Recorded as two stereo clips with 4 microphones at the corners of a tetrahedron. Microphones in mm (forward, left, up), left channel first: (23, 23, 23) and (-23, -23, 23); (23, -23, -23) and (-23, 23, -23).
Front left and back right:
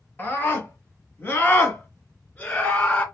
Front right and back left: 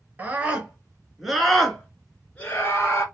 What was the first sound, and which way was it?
A scream, 85° left.